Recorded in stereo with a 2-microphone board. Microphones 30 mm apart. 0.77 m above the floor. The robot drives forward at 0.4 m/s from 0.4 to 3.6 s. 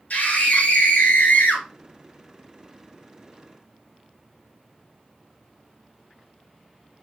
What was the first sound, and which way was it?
A scream, 65° left (ahead or behind).